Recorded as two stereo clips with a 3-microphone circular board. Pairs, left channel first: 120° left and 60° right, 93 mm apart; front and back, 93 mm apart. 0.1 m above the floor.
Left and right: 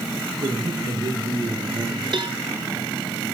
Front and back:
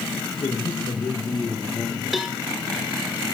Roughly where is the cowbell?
Right.